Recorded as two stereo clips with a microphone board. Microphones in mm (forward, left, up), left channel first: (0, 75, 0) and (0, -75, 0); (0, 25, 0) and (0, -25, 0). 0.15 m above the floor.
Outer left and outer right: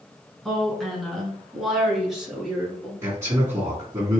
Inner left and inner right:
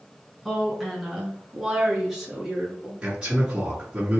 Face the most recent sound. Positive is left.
turn(degrees=-20)  # may be behind; listen again after turning